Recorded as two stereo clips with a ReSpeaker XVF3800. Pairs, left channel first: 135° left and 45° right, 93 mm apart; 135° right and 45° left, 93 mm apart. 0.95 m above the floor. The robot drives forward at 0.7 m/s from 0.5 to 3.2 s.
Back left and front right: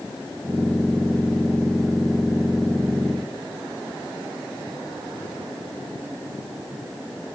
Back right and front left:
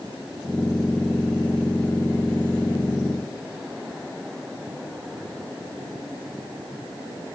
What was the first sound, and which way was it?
Only background noise.